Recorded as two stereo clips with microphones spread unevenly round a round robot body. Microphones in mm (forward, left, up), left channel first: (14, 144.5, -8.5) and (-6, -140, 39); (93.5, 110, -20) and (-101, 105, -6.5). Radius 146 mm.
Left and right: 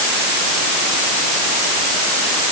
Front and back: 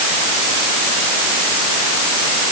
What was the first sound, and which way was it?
Only background noise.